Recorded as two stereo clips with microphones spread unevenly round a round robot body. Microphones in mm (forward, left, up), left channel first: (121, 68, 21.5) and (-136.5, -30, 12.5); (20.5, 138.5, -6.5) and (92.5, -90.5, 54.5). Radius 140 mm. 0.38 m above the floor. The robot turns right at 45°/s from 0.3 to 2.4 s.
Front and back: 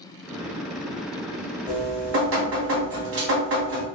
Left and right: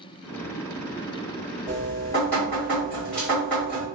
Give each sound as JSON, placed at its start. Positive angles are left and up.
{"t": 1.7, "sound": "dripping", "azimuth_deg": 150, "distance_m": 1.5}